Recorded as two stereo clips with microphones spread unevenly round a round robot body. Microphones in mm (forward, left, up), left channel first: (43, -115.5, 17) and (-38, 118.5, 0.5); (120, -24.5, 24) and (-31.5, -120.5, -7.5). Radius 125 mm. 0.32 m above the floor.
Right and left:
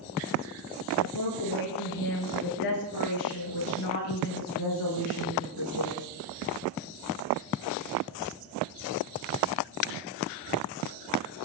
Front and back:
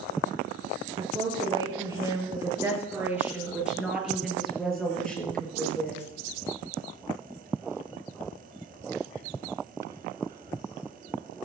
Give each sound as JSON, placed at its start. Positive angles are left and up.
{"t": 1.0, "sound": "a woman speaking", "azimuth_deg": -85, "distance_m": 6.5}